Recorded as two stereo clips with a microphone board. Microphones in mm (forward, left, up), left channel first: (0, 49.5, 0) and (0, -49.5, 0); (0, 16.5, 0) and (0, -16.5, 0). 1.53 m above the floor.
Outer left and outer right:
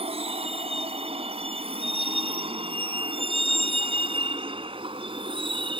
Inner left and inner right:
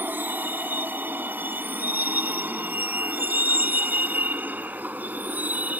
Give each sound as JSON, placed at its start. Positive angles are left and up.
{"t": 0.0, "sound": "a vehicle", "side_deg": -85}